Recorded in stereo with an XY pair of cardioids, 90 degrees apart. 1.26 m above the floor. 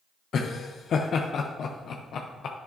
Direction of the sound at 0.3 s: 65° left.